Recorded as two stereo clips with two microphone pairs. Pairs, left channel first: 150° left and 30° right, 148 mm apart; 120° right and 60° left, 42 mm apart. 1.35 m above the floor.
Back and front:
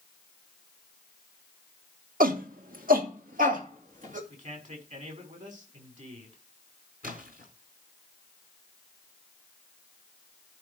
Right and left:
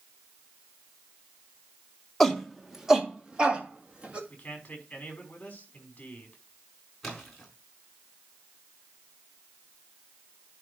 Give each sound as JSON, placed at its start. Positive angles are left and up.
{"t": 2.2, "sound": "a shout", "azimuth_deg": -35, "distance_m": 1.6}
{"t": 4.3, "sound": "a man speaking", "azimuth_deg": -60, "distance_m": 5.5}
{"t": 7.0, "sound": "a splash", "azimuth_deg": -35, "distance_m": 4.5}